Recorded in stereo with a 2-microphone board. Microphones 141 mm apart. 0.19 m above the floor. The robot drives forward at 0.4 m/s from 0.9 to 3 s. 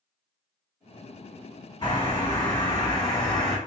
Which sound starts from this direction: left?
A bird, at 1.8 s.